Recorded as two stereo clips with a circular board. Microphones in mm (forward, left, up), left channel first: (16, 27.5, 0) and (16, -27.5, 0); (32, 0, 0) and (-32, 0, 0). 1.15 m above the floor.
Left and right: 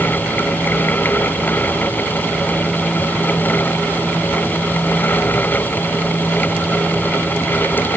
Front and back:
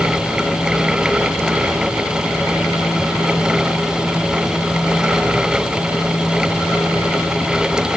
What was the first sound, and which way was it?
Only background noise.